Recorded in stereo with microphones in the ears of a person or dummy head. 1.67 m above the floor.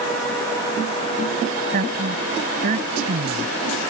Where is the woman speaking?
50° right (ahead or behind); by 3.5 s 45° right (ahead or behind).